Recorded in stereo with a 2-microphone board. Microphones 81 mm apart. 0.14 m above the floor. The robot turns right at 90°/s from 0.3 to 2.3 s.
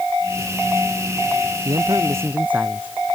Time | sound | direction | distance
1.6 | a man speaking | 80° right | ?